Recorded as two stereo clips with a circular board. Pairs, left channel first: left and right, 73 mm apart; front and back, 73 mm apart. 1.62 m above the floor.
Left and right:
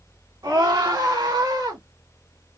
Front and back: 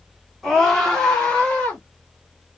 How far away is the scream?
About 1.5 m.